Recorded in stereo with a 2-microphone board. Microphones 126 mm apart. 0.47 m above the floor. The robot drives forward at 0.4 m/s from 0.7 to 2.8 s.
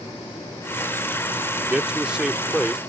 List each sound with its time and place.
1.6 s a man speaking: 5° right (ahead or behind)